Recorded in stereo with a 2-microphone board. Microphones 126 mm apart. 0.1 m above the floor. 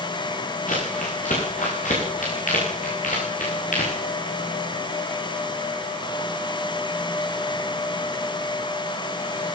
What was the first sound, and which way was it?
Crumpling, 85° left.